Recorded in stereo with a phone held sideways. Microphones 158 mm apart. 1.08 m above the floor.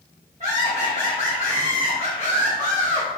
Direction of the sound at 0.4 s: 45° right (ahead or behind).